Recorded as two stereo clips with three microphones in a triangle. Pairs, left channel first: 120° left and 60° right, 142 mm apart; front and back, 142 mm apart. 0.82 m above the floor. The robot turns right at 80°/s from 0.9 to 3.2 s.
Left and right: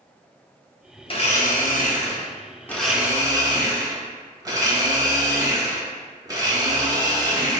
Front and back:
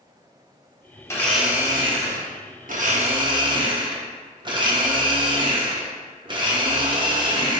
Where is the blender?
65° left, 0.7 m; by 7.6 s 125° right, 0.7 m.